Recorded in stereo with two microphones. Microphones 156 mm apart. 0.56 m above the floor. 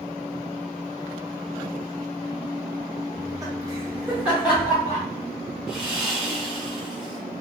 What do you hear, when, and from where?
3.1 s laughter: 25° right (ahead or behind), 0.8 m; by 5.0 s 5° right (ahead or behind), 2 m
5.7 s sawing: 5° right (ahead or behind), 1.2 m